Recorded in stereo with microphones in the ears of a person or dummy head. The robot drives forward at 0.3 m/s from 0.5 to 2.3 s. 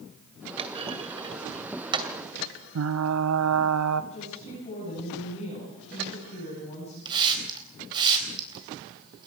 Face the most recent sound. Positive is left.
turn(degrees=-25)  # may be behind; listen again after turning